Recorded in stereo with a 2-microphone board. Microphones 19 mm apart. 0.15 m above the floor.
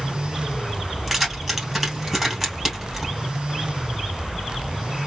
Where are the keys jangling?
10° right (ahead or behind), 2.5 m.